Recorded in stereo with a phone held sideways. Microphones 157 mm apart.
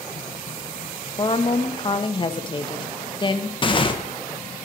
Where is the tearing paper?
30° left (ahead or behind), 1.1 m.